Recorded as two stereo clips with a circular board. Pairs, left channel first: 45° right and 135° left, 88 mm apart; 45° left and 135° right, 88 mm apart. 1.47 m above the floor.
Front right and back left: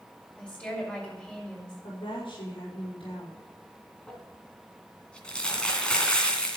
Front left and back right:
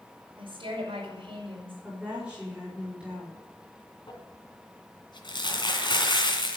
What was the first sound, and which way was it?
A woman speaking, 120° right.